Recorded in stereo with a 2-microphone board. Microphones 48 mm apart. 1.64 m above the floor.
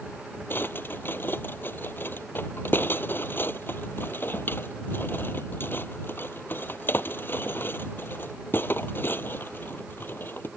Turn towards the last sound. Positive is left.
turn(degrees=45)  # may be behind; listen again after turning